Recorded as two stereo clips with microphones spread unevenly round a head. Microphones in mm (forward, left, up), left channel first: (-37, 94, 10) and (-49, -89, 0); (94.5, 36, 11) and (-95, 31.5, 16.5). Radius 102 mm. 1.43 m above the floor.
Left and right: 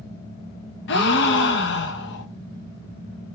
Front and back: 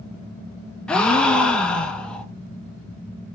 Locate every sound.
0.9 s a gasp: 85° left, 0.7 m